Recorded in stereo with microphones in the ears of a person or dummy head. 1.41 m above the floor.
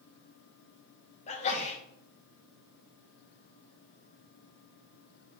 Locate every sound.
1.3 s a sneeze: 35° left (ahead or behind), 1.8 m